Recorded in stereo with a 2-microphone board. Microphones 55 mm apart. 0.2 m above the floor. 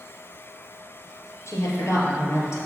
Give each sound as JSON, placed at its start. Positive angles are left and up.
{"t": 1.5, "sound": "a woman speaking", "side_deg": 60, "distance_m": 4.0}